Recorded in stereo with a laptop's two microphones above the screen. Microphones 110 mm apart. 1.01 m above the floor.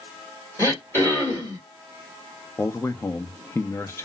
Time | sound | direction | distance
0.6 | throat clearing | 25° left (ahead or behind) | 1.7 m
2.6 | a man speaking | 25° left (ahead or behind) | 0.6 m